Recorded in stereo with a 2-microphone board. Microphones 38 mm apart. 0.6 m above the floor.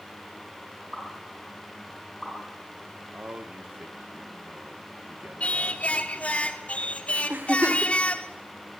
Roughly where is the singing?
Left.